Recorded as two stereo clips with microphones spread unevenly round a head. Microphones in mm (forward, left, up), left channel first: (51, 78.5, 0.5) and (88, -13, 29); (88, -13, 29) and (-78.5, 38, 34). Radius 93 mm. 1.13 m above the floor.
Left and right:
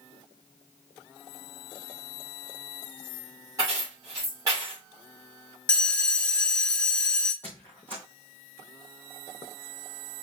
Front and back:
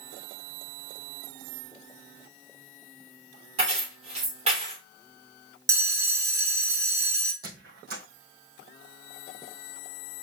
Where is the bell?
145° right, 0.5 m.